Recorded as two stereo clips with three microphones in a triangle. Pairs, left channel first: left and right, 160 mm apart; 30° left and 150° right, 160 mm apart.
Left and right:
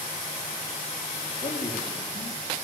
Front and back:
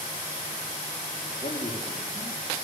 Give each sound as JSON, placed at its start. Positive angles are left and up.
{"t": 1.3, "sound": "a man speaking", "azimuth_deg": 80, "distance_m": 4.5}